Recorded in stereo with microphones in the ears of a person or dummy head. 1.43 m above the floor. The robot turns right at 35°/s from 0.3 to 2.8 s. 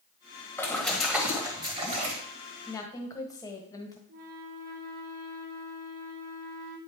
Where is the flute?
45° right (ahead or behind), 0.9 m.